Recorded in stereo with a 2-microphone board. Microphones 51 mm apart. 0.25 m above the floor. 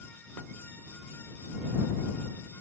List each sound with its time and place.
Only background noise.